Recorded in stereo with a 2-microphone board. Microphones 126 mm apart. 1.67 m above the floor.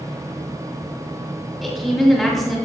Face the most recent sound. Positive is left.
turn(degrees=0)  # may be behind; listen again after turning